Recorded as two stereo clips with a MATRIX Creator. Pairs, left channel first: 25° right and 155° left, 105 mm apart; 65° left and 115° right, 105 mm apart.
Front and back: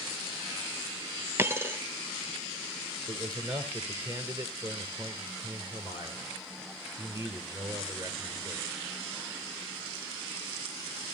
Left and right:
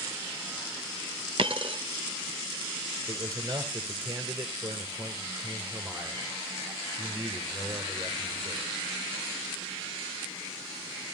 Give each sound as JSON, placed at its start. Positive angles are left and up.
{"t": 1.4, "sound": "a dropped coin", "azimuth_deg": -140, "distance_m": 0.7}
{"t": 3.1, "sound": "a man speaking", "azimuth_deg": -160, "distance_m": 2.5}